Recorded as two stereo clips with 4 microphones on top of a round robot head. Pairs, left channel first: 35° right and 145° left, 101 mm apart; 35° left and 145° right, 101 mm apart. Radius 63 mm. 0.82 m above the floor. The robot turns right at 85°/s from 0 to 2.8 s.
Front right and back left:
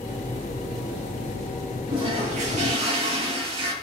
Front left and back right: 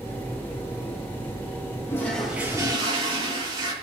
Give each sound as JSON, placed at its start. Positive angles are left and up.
{"t": 1.9, "sound": "a toilet flushing", "azimuth_deg": 95, "distance_m": 6.0}